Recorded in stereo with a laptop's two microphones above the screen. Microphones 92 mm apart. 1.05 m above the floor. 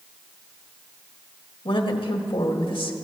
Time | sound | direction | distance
1.6 | a woman speaking | 75° left (ahead or behind) | 1.5 m